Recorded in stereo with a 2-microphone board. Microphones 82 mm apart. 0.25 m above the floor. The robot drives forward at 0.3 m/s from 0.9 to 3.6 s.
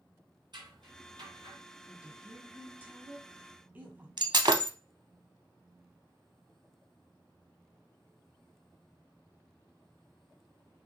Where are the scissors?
65° right (ahead or behind), 3 m.